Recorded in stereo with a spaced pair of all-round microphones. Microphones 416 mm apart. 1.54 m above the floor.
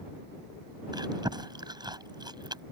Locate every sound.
0.9 s chewing: 10° right (ahead or behind)